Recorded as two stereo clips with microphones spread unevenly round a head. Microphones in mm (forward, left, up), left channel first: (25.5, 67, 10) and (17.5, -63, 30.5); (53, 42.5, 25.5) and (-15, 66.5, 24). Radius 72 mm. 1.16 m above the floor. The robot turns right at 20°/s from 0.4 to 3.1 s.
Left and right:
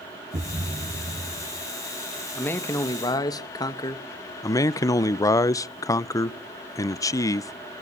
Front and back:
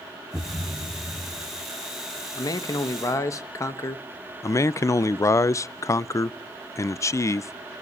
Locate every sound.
0.3 s a thud: 125° right, 1.0 m; by 1.7 s 100° right, 1.0 m
2.4 s a man speaking: 10° left, 1.3 m; by 4.0 s 25° left, 1.3 m
4.4 s a man speaking: 25° left, 0.5 m